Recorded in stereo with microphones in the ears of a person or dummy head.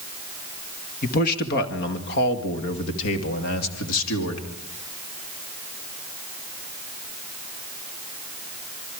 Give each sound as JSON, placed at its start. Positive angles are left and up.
{"t": 1.0, "sound": "a man speaking", "side_deg": 40, "distance_m": 2.0}